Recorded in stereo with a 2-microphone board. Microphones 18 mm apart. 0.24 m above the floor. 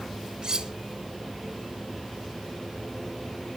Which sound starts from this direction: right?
Cutlery clinking, at 0.4 s.